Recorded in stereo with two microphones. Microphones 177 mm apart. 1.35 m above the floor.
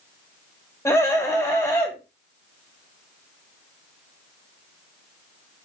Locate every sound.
0.8 s a scream: 15° left (ahead or behind), 6 m